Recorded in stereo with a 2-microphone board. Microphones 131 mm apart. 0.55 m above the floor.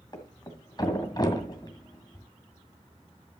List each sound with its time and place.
0.1 s a thud: 35° left (ahead or behind), 1.7 m